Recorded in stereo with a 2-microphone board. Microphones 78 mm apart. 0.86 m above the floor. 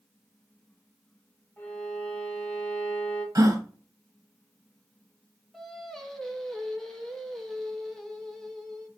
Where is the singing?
5° left (ahead or behind), 1.1 m.